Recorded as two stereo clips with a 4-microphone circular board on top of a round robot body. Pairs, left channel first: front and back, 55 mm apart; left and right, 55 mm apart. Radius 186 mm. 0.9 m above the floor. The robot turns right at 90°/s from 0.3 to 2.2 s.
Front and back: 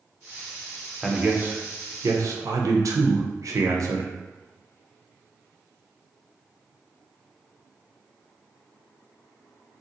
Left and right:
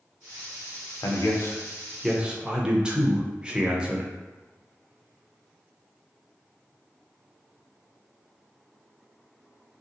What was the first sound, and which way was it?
A man speaking, 90° left.